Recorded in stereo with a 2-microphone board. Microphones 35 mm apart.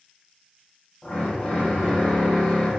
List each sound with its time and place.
1.0 s a drill: 25° left (ahead or behind), 1.4 m